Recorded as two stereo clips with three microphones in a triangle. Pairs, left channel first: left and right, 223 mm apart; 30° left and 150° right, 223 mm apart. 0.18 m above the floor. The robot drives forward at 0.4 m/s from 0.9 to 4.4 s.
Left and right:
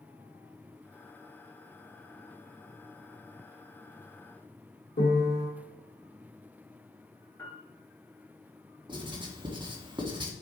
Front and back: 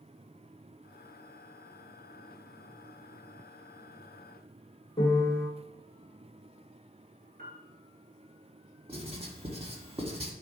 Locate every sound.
5.0 s a piano: 85° left, 1.6 m
7.4 s a piano: 170° left, 1.9 m
8.9 s writing: 130° right, 1.4 m